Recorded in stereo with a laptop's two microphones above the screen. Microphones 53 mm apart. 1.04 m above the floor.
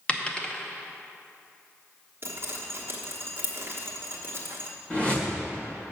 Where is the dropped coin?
25° left (ahead or behind), 0.6 m.